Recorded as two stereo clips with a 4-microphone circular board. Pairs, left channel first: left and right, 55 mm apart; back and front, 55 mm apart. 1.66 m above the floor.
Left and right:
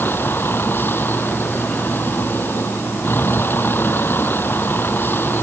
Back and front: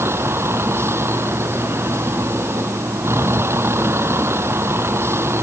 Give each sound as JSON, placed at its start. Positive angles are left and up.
{"t": 0.0, "sound": "a vehicle", "azimuth_deg": 40}